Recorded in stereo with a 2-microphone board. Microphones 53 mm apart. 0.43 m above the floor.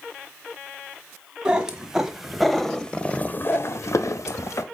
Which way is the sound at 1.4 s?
15° right (ahead or behind).